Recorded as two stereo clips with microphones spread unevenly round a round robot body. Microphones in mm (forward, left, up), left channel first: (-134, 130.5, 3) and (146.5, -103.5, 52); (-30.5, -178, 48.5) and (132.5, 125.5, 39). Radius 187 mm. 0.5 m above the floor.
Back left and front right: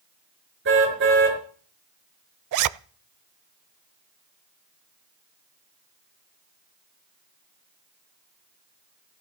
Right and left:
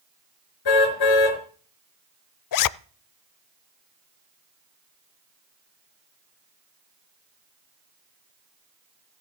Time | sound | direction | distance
0.7 | a car horn | 100° right | 5 m
2.5 | a zipper | 85° right | 0.6 m